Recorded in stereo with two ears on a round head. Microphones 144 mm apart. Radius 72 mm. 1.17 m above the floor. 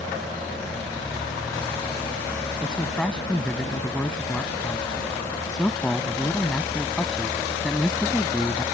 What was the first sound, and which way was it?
A man speaking, 5° left (ahead or behind).